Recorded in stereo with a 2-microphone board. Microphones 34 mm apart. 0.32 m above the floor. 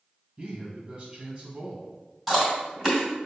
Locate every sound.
0.4 s a man speaking: 30° right (ahead or behind), 1.7 m
2.3 s chewing: 5° right (ahead or behind), 1.8 m